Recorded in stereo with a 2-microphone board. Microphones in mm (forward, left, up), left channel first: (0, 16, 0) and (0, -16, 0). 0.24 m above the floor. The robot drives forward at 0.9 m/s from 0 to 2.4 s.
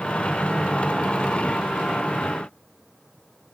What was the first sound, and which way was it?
Only background noise.